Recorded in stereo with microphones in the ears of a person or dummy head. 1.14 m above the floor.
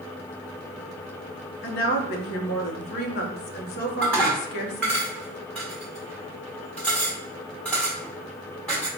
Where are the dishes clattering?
Centre (ahead or behind), 1.0 m.